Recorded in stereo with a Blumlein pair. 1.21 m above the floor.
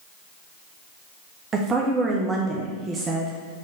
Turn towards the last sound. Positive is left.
turn(degrees=-20)